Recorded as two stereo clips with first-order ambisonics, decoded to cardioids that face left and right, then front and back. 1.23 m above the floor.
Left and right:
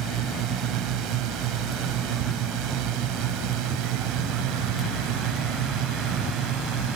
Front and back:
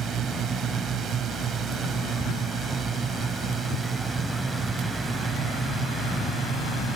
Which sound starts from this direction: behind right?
A drone, at 0.0 s.